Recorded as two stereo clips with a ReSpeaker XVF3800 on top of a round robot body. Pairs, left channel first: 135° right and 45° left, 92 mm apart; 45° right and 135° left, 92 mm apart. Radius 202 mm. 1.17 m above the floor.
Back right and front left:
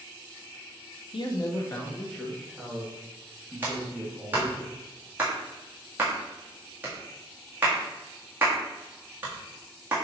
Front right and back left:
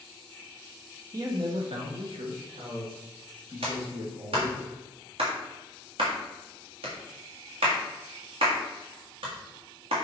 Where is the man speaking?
170° right, 1.0 m; by 4.6 s 125° left, 4.5 m.